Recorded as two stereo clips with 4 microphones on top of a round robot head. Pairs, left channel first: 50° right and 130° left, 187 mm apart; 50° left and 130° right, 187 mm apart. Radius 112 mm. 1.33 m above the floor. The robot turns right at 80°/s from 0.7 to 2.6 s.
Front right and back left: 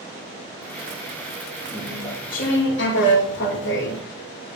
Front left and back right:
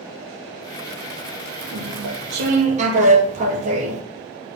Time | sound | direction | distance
1.7 | chewing | 145° right | 2.5 m